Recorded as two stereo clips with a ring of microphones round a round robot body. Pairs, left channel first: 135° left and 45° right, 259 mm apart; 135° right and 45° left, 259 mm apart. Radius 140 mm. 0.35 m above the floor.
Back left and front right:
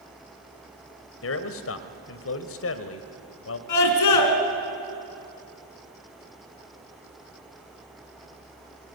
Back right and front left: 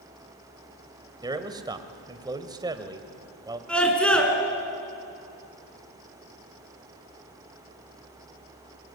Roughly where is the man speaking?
Behind left.